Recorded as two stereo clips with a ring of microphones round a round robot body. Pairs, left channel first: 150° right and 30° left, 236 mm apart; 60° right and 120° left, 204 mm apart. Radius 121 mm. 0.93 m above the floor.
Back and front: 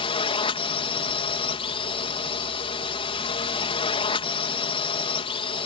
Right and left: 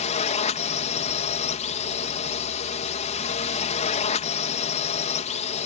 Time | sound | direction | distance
0.0 | a drone | 95° right | ?